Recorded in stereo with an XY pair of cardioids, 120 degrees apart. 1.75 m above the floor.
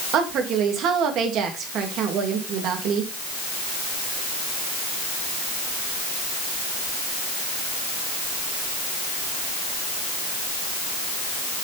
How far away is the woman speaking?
About 3 m.